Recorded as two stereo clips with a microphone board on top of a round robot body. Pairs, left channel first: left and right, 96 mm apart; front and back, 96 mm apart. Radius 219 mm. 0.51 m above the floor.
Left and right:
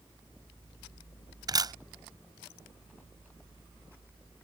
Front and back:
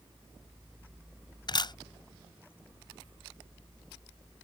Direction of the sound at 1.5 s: 45° right.